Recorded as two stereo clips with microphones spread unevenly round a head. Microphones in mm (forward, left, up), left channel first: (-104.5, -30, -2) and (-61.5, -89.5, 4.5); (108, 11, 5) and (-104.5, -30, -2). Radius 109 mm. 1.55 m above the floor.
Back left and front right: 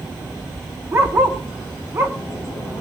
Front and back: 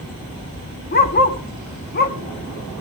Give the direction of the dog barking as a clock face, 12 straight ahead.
12 o'clock.